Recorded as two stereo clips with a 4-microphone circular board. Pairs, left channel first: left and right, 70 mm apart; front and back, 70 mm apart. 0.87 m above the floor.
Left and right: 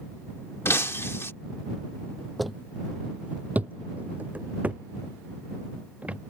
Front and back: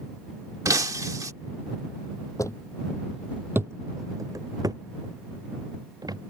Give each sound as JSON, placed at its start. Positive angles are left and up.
{"t": 0.7, "sound": "breaking glass", "azimuth_deg": 145}
{"t": 2.4, "sound": "footsteps", "azimuth_deg": 5}